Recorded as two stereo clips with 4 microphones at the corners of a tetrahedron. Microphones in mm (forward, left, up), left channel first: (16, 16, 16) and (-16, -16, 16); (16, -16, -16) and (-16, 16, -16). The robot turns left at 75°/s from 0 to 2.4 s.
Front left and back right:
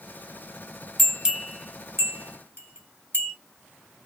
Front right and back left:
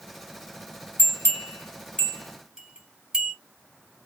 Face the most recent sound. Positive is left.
turn(degrees=-145)